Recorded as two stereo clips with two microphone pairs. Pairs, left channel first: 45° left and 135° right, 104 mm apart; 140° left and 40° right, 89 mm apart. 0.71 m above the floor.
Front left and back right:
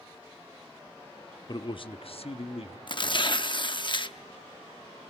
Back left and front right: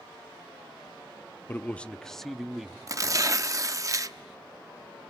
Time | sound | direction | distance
1.5 | a man speaking | 80° left | 0.6 m
2.9 | tearing paper | 10° left | 0.8 m